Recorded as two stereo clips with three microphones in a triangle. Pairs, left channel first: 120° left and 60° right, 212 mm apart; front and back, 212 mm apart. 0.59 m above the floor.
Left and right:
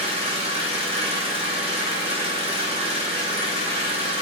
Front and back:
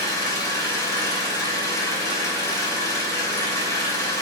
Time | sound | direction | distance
0.0 | an engine running | 60° right | 0.9 m